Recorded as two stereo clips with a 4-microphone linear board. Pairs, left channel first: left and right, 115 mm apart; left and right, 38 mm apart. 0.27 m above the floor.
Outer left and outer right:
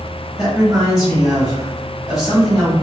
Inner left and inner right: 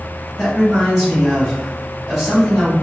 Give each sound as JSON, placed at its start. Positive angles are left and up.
{"t": 0.4, "sound": "a man speaking", "side_deg": -5, "distance_m": 1.2}